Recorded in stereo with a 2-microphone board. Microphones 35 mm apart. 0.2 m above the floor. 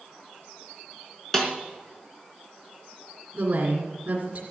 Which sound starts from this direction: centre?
A snare drum, at 1.3 s.